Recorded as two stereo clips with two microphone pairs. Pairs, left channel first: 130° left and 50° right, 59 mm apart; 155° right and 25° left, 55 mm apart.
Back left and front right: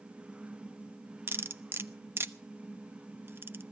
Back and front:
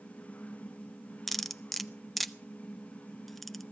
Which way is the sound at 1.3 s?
75° right.